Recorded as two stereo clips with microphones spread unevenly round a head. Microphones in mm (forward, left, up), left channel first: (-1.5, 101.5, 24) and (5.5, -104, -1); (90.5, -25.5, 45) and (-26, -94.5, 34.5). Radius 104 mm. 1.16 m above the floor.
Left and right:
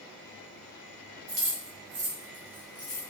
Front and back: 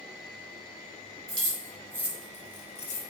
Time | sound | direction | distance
1.3 | keys jangling | 95° right | 1.0 m